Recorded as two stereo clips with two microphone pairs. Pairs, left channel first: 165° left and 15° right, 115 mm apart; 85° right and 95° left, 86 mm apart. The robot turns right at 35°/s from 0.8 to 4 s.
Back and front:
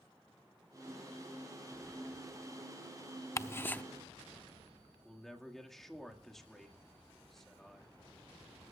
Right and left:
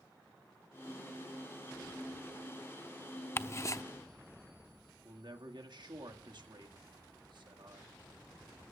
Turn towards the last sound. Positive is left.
turn(degrees=75)